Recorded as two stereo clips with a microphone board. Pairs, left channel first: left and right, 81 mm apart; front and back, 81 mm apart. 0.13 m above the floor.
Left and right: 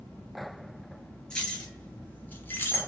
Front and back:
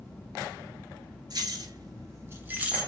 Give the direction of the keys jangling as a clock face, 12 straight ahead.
7 o'clock.